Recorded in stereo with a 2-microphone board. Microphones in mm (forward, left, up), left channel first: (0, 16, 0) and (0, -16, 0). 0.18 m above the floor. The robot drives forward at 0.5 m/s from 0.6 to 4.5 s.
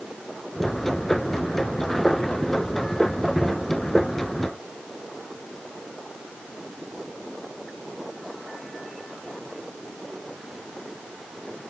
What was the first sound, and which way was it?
Only background noise.